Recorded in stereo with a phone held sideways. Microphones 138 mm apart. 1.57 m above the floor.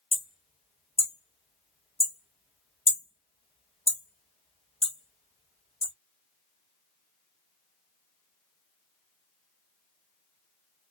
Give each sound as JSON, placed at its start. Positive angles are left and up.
{"t": 0.1, "sound": "hammering", "side_deg": 45, "distance_m": 1.2}